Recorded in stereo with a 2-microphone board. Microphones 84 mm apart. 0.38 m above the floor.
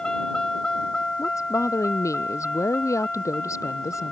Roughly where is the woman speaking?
Left.